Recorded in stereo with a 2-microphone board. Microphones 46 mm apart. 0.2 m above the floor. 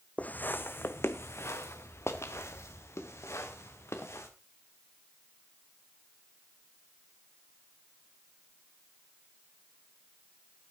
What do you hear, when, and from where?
0.2 s footsteps: 35° left (ahead or behind), 0.7 m; by 4.3 s 90° left, 3 m